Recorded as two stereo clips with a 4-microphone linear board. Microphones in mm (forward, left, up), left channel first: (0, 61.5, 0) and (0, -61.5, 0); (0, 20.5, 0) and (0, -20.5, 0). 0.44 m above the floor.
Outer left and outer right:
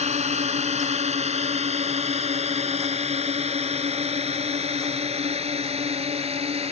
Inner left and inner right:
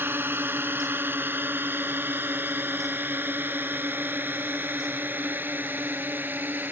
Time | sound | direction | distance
0.0 | a drone | 65° right (ahead or behind) | ?